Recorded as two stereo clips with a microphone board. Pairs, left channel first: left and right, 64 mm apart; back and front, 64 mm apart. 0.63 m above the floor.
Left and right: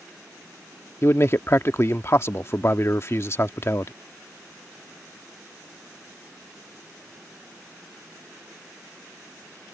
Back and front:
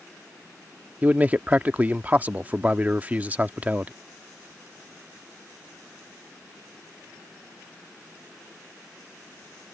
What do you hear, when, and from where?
1.0 s a man speaking: 60° left